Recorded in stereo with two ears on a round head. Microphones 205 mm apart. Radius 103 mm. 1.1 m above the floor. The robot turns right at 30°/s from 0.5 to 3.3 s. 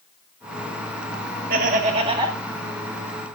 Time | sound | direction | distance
1.5 | laughter | 40° right (ahead or behind) | 1.7 m